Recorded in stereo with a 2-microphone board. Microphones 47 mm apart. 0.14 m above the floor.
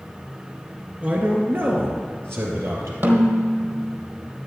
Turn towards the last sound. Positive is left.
turn(degrees=-50)  # may be behind; listen again after turning